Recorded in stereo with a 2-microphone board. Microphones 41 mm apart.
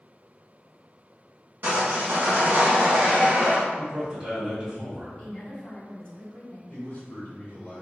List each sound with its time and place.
1.6 s sawing: 55° right (ahead or behind), 1.2 m
3.8 s a man speaking: 25° right (ahead or behind), 1.4 m
5.2 s a woman speaking: 25° left (ahead or behind), 1.9 m
6.7 s a man speaking: 45° left (ahead or behind), 1.5 m